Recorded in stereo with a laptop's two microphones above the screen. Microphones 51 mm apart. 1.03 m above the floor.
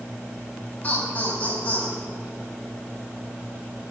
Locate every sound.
0.8 s laughter: 30° left (ahead or behind), 7 m